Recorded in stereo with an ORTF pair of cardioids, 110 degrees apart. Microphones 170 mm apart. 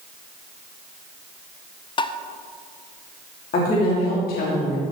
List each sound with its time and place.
2.0 s tapping: 30° left, 0.6 m
3.5 s a woman speaking: 60° left, 3 m